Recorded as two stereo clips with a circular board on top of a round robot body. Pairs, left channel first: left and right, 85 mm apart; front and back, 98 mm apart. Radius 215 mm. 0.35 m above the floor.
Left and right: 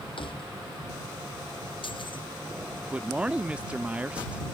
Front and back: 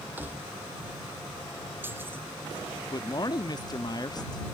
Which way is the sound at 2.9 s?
20° right.